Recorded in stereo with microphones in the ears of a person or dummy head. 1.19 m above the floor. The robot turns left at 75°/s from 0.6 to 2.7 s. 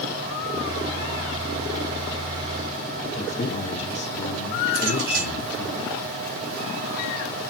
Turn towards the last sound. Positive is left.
turn(degrees=-45)  # may be behind; listen again after turning